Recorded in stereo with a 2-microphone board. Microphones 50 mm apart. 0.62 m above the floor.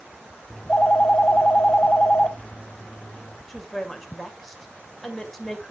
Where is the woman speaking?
5° left (ahead or behind), 2.0 m.